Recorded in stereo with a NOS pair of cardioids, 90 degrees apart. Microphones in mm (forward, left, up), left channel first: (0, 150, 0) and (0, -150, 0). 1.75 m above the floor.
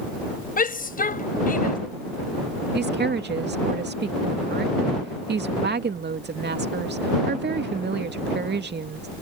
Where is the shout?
30° left.